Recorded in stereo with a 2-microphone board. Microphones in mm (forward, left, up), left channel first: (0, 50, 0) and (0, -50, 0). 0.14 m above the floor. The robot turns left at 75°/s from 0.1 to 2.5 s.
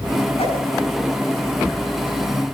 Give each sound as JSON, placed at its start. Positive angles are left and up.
{"t": 0.4, "sound": "a whoosh", "side_deg": 80, "distance_m": 6.5}